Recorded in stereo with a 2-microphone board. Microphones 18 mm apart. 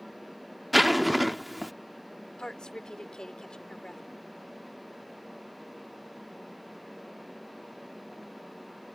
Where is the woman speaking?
45° left (ahead or behind).